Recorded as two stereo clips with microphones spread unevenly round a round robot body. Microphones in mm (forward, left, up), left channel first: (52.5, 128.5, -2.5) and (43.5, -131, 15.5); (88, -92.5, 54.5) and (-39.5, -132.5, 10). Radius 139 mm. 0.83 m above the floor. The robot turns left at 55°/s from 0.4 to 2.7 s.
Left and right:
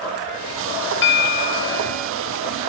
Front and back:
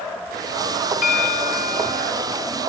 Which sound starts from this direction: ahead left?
A bell, at 1.0 s.